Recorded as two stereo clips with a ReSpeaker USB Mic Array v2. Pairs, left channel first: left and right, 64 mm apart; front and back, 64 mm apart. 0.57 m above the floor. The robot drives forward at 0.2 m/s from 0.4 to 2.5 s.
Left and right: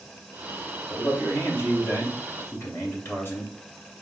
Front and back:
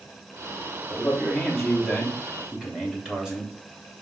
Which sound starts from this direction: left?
A man speaking, at 0.9 s.